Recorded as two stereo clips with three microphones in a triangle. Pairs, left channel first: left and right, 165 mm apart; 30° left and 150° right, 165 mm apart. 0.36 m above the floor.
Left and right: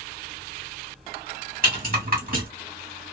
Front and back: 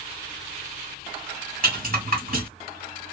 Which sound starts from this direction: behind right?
A rattle, at 1.6 s.